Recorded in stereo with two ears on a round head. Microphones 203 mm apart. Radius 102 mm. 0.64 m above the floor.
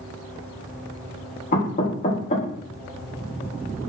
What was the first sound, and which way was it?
Knocking, 40° left (ahead or behind).